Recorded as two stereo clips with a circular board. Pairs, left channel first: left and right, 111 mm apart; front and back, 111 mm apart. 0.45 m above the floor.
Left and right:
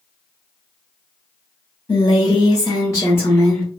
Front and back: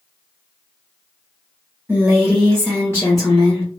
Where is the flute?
I don't hear a flute.